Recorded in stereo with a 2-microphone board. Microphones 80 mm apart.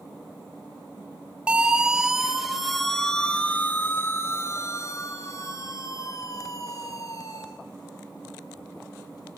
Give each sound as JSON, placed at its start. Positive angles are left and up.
{"t": 1.5, "sound": "a siren", "side_deg": -15, "distance_m": 3.0}